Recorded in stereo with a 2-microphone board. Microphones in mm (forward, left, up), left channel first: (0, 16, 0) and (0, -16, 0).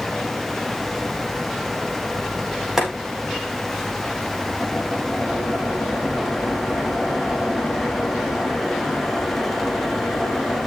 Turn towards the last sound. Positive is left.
turn(degrees=-10)  # may be behind; listen again after turning